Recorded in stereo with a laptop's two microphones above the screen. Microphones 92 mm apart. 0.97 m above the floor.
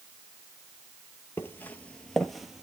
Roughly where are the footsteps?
Left.